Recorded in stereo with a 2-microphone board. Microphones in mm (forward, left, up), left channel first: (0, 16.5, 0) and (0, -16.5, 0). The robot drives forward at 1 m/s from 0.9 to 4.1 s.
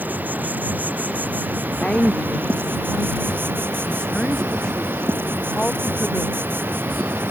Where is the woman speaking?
30° left (ahead or behind); by 7.3 s 25° left (ahead or behind).